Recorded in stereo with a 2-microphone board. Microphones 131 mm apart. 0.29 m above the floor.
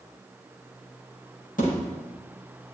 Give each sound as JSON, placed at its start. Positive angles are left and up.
{"t": 1.6, "sound": "a thud", "side_deg": 85, "distance_m": 6.0}